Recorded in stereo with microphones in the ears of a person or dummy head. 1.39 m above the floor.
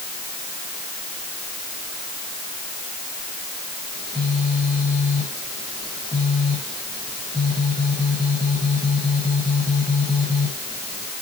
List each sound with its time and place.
3.9 s a phone buzzing: 20° left (ahead or behind), 4.5 m